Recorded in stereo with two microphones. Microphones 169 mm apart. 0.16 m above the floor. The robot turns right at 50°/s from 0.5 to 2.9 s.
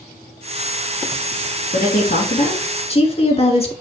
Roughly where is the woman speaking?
Left.